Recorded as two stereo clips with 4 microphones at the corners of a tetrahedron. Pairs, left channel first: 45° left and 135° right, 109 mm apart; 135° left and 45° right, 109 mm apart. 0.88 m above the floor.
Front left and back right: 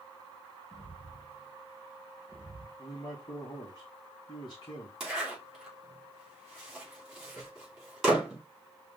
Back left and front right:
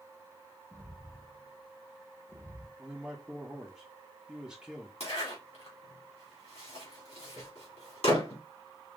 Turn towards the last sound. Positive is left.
turn(degrees=140)